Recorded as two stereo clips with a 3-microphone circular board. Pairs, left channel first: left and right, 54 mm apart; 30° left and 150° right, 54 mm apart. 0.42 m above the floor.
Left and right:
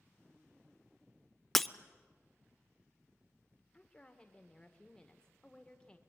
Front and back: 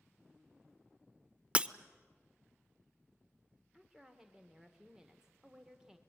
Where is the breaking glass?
170° left, 0.6 m.